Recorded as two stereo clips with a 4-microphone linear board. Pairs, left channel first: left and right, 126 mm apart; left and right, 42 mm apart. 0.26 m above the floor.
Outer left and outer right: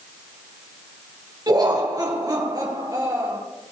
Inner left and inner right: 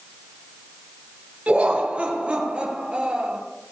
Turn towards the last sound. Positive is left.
turn(degrees=-30)  # may be behind; listen again after turning